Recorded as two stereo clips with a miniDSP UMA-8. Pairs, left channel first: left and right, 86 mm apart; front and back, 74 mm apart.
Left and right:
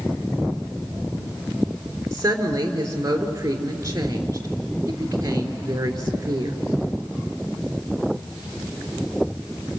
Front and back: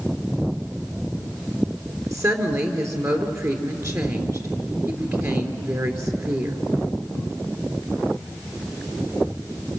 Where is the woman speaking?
140° right, 3.5 m.